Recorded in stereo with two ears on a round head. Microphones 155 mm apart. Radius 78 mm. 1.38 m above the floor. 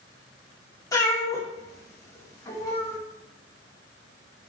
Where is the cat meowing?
20° left (ahead or behind), 1.7 m.